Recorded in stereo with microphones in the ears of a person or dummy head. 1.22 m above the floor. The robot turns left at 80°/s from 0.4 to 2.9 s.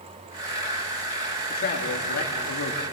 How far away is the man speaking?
About 2.5 m.